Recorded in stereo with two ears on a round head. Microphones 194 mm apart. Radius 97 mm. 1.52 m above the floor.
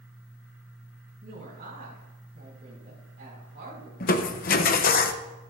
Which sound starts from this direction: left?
Crushing, at 4.0 s.